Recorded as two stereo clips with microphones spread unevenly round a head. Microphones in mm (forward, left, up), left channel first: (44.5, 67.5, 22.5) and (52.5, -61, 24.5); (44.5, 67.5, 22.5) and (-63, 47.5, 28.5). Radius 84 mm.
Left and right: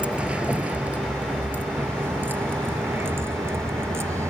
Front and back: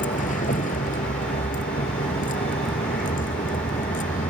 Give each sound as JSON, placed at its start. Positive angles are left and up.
{"t": 0.0, "sound": "a vehicle", "azimuth_deg": -5}